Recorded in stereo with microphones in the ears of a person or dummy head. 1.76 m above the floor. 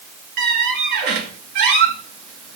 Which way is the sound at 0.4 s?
50° right (ahead or behind).